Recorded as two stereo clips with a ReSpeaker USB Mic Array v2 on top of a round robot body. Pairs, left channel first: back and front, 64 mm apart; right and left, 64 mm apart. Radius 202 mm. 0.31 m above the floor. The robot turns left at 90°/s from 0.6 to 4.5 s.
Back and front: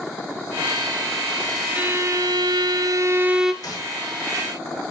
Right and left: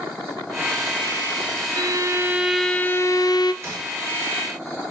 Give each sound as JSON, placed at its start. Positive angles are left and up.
{"t": 1.8, "sound": "a violin", "azimuth_deg": 75, "distance_m": 1.1}
{"t": 3.6, "sound": "a gunshot", "azimuth_deg": 145, "distance_m": 8.0}